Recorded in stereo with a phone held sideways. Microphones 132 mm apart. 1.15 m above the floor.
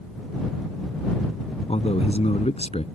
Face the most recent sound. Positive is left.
turn(degrees=55)  # may be behind; listen again after turning